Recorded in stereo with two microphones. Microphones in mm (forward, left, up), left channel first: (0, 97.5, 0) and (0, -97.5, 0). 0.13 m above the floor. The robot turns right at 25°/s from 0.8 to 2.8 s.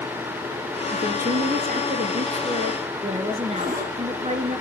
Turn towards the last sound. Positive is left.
turn(degrees=-45)  # may be behind; listen again after turning